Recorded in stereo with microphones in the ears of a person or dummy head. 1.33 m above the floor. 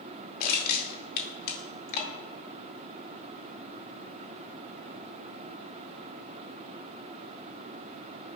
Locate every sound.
0.4 s crushing: 50° left (ahead or behind), 2 m